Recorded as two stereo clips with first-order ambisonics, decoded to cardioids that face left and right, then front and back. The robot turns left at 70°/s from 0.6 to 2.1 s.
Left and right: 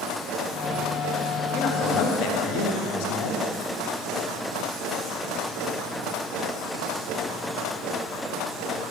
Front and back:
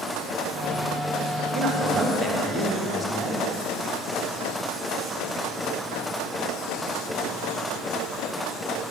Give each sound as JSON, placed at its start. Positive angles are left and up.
{"t": 1.5, "sound": "a man speaking", "azimuth_deg": 145, "distance_m": 1.4}